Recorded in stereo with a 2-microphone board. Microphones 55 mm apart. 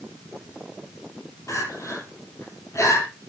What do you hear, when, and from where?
1.5 s crying: 65° left (ahead or behind), 7 m